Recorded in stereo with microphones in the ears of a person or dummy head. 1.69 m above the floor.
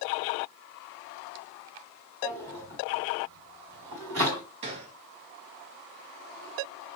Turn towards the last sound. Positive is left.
turn(degrees=-35)  # may be behind; listen again after turning